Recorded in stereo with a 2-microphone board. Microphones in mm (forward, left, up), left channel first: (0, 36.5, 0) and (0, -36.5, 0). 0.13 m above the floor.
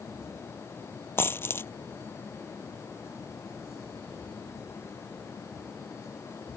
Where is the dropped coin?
30° left (ahead or behind).